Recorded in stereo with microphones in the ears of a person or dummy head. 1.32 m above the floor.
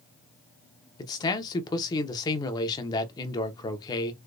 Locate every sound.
1.0 s a man speaking: 25° left (ahead or behind), 0.8 m